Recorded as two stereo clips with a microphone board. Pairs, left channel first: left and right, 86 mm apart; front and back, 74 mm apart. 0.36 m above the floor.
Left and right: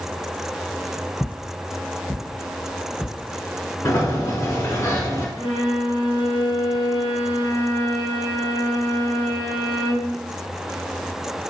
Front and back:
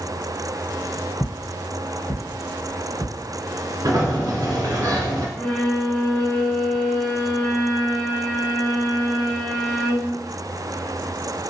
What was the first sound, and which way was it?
Footsteps, 20° left.